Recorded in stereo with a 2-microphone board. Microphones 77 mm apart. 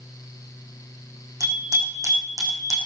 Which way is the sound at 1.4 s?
50° right (ahead or behind).